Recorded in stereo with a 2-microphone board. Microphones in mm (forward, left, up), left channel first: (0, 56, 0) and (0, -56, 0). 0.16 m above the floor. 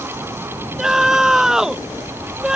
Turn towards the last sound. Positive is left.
turn(degrees=-5)  # may be behind; listen again after turning